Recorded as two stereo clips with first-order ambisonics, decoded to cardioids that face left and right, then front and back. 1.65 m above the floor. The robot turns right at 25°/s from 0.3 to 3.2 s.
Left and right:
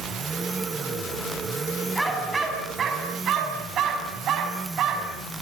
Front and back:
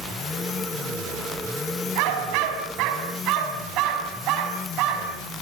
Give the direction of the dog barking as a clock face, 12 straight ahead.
6 o'clock.